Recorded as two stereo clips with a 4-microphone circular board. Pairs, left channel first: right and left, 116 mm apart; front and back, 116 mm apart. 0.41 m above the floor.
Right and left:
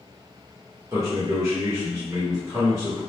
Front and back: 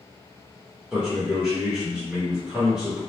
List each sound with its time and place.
0.9 s a man speaking: 105° left, 0.9 m